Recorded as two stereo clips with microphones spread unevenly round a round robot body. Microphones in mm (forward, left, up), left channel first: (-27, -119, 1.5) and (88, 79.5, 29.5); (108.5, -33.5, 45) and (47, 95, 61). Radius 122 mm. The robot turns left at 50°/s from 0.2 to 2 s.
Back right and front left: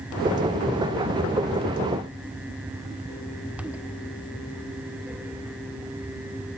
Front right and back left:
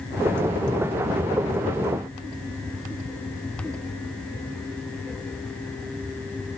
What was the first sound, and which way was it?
Only background noise.